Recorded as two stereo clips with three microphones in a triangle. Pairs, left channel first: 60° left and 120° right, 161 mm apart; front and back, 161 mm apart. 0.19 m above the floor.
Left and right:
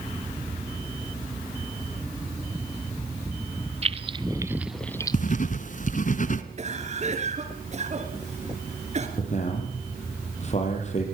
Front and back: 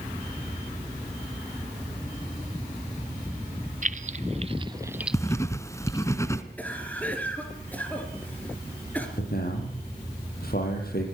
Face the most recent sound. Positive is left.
turn(degrees=15)